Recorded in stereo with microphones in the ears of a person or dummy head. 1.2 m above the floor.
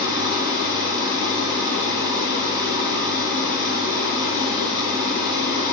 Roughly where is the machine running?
Right.